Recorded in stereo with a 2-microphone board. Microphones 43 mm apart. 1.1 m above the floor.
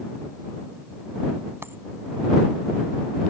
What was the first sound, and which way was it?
A dropped coin, 65° right (ahead or behind).